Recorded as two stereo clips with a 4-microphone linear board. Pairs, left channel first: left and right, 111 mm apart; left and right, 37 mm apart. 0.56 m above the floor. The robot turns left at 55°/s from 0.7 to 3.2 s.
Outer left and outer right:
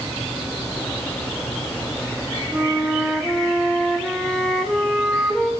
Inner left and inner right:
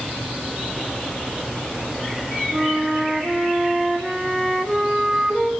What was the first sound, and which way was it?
A flute, 10° right (ahead or behind).